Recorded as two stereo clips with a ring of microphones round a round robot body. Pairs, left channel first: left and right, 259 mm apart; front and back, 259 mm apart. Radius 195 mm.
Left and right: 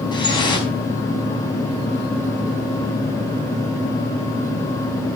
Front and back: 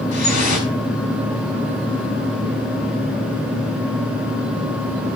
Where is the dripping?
15° left, 5 m.